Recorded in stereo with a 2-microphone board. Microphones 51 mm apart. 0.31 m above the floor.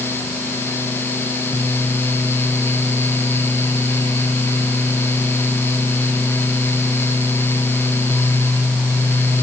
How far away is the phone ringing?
No phone ringing in this recording.